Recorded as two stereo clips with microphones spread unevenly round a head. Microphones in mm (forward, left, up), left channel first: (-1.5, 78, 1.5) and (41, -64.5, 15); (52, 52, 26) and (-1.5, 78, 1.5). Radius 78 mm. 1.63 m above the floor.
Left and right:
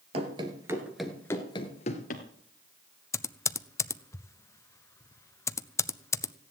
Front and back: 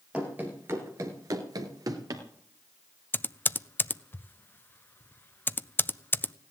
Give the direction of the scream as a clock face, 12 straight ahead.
I don't hear a scream.